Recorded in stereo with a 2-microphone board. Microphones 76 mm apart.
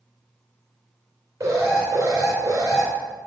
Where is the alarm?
45° right (ahead or behind), 2.5 m.